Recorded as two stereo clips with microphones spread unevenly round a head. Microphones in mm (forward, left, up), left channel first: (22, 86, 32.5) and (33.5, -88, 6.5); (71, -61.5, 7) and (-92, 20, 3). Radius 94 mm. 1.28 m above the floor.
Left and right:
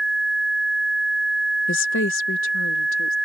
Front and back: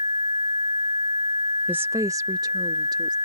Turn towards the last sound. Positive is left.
turn(degrees=85)